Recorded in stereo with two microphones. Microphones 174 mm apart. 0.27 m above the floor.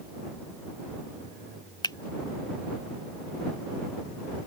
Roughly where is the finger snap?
Left.